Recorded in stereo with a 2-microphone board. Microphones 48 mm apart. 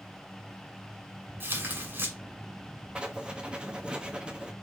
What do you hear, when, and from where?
1.4 s tearing paper: 55° right (ahead or behind), 2.5 m
3.0 s writing: 20° right (ahead or behind), 1.1 m